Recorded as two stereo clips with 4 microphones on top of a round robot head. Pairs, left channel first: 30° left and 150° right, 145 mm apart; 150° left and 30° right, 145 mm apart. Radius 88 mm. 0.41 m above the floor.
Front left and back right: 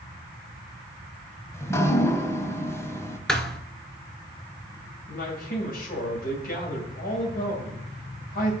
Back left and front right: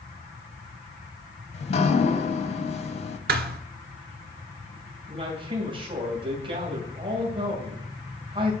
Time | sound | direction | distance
1.5 | dripping | 105° left | 1.1 m
3.3 | a thud | 55° right | 0.9 m
5.1 | a man speaking | 25° left | 2.5 m